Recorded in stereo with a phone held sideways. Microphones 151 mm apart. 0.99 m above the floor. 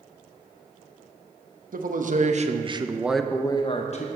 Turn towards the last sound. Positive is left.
turn(degrees=50)  # may be behind; listen again after turning